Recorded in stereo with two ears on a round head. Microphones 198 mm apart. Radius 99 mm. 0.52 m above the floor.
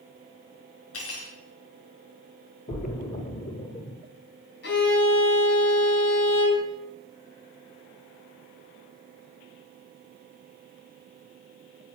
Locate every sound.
0.9 s cutlery clinking: 70° left (ahead or behind), 4.5 m
2.7 s a splash: 35° left (ahead or behind), 1.7 m
4.6 s a violin: 50° left (ahead or behind), 3.5 m